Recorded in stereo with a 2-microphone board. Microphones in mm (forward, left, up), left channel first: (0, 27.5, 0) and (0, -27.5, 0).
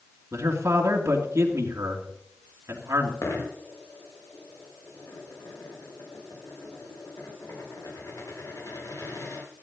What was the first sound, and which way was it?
A man speaking, 70° right (ahead or behind).